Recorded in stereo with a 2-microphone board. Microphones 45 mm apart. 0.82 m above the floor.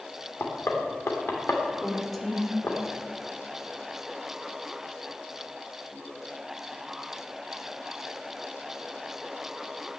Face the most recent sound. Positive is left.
turn(degrees=5)  # may be behind; listen again after turning